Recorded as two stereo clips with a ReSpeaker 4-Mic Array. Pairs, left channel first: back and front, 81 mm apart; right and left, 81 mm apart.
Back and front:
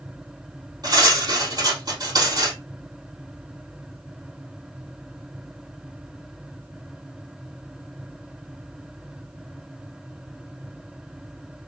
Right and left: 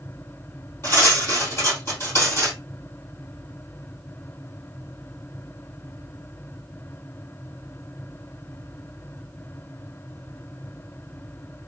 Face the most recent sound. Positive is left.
turn(degrees=-35)